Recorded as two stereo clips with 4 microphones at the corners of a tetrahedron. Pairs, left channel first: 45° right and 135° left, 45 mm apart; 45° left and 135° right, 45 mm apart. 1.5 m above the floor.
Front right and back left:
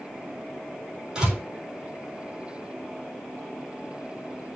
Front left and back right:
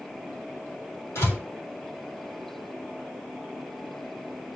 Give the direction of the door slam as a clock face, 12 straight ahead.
10 o'clock.